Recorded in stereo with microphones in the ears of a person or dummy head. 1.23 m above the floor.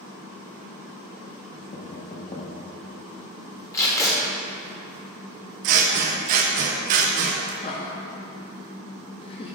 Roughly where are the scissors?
Right.